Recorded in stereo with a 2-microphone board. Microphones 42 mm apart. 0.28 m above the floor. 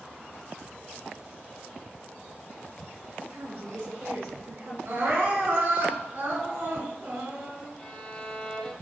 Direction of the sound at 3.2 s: 75° right (ahead or behind).